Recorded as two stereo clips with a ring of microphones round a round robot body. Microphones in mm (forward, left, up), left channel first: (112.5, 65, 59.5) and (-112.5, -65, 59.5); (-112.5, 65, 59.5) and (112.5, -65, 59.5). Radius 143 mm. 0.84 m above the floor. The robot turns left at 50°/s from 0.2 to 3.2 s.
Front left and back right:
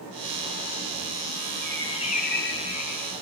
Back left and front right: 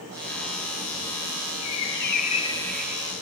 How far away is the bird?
About 1.9 m.